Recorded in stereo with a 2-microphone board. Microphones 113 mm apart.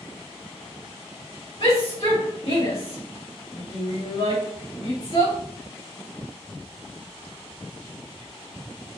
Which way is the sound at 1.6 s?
60° left (ahead or behind).